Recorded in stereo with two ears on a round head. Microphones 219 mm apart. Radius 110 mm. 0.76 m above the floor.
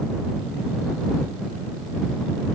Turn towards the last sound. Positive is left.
No sound to turn to.